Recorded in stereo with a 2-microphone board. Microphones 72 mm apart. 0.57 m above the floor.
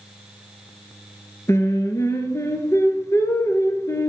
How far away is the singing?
About 1.7 m.